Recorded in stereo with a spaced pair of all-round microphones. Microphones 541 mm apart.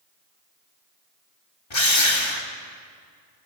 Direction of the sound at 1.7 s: 50° left (ahead or behind).